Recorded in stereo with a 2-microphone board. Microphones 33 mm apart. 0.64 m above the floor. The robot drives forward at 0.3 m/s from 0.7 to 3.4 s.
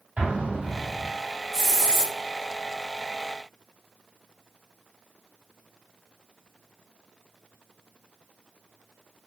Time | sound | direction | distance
0.2 | an explosion | 50° right (ahead or behind) | 1.6 m
1.5 | a hiss | 15° left (ahead or behind) | 0.7 m